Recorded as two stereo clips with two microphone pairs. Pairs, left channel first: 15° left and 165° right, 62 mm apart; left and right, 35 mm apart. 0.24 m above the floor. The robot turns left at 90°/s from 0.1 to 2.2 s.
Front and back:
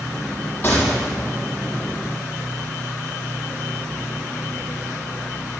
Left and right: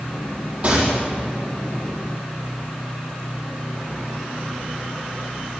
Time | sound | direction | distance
0.6 | a gunshot | 45° right | 5 m